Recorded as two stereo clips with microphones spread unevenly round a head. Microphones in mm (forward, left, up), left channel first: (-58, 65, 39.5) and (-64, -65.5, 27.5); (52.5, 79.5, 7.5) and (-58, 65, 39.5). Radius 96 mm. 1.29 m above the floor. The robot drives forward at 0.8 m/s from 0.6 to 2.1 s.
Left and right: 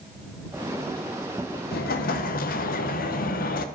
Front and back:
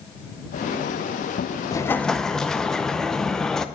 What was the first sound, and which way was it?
An explosion, 70° left.